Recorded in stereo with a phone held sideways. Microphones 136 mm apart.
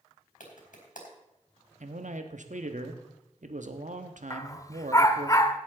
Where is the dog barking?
25° left (ahead or behind), 0.8 m.